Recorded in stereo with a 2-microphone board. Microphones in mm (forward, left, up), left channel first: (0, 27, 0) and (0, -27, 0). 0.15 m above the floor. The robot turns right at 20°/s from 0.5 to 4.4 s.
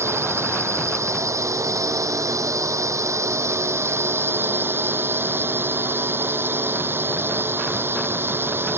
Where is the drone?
120° right; by 8.8 s 45° right.